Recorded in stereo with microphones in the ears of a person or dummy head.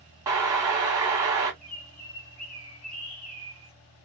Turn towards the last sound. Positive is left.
turn(degrees=85)